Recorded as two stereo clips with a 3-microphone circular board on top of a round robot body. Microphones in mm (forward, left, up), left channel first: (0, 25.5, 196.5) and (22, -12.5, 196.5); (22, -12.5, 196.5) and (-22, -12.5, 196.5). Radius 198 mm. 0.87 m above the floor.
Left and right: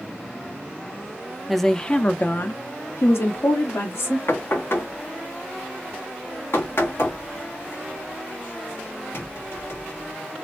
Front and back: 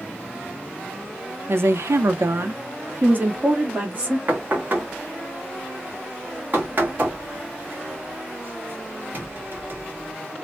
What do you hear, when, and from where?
1.5 s a woman speaking: 145° right, 0.7 m; by 4.2 s 125° left, 1.4 m
4.3 s knocking: 140° left, 1.3 m